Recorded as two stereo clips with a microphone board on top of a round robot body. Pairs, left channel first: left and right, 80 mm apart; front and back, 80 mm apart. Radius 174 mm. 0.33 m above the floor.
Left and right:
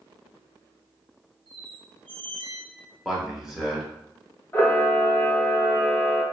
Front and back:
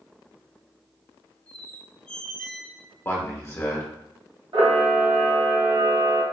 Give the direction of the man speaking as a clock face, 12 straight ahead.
12 o'clock.